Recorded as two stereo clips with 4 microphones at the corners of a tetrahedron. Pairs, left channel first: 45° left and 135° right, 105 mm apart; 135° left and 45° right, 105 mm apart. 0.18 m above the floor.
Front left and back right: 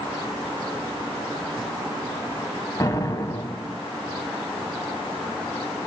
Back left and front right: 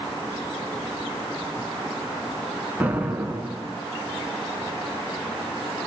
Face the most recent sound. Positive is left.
turn(degrees=15)